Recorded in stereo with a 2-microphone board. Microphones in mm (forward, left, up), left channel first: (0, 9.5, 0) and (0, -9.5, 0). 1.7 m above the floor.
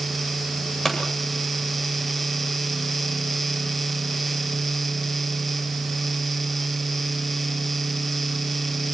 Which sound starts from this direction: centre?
A pop, at 0.8 s.